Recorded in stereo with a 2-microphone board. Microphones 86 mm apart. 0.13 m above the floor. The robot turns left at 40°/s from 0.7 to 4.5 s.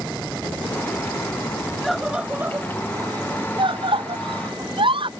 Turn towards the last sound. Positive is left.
turn(degrees=-70)  # may be behind; listen again after turning